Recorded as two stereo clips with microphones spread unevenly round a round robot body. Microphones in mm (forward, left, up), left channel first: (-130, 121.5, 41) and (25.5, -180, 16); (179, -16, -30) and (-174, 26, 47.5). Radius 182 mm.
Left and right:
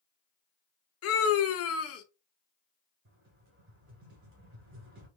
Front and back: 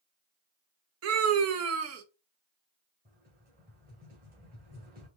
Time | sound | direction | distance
1.0 | a scream | 130° left | 0.6 m
3.0 | a rattle | 120° right | 1.7 m